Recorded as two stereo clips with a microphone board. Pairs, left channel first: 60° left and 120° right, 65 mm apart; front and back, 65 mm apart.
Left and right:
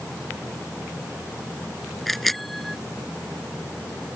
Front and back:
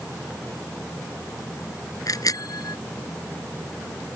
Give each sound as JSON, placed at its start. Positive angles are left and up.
{"t": 2.1, "sound": "a bicycle bell", "azimuth_deg": -30}